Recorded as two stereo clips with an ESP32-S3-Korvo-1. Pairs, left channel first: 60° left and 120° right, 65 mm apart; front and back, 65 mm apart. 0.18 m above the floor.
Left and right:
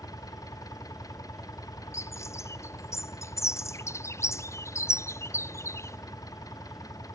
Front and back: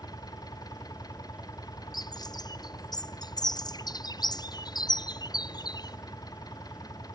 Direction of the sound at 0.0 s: 25° left.